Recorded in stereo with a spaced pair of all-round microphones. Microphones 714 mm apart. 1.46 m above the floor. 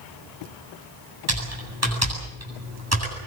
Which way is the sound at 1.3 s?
20° right (ahead or behind).